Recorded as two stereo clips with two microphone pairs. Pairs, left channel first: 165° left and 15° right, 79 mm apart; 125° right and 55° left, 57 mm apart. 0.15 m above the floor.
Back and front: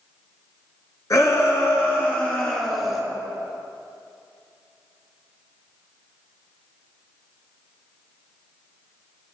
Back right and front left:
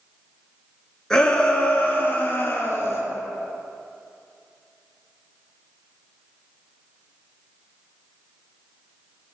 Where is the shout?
160° left, 1.9 m; by 3.0 s 110° right, 2 m.